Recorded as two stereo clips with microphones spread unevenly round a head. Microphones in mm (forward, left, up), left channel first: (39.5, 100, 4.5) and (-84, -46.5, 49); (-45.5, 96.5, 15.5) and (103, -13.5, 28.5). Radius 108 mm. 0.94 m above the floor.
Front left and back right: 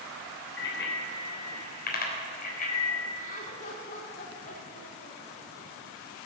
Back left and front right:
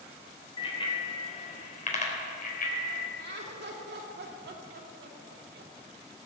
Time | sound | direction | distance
0.6 | a bicycle bell | 80° left | 3 m
3.2 | laughter | 5° right | 2.5 m